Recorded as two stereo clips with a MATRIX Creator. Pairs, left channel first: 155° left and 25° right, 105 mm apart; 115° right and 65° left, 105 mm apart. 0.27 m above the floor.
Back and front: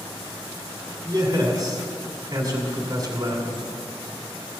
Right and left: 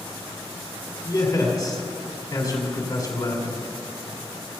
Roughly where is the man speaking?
Right.